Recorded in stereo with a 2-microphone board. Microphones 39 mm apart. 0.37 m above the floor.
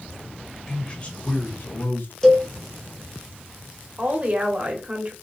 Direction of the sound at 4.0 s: 35° right (ahead or behind).